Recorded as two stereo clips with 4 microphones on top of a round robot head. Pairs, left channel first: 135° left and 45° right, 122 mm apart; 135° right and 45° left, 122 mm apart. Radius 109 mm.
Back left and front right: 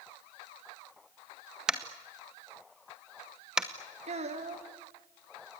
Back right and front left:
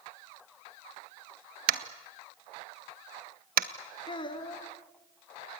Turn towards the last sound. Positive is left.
turn(degrees=-80)